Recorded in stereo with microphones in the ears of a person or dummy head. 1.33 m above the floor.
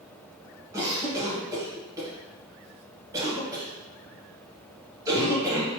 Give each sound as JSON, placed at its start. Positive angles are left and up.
{"t": 0.7, "sound": "a cough", "side_deg": -20, "distance_m": 1.3}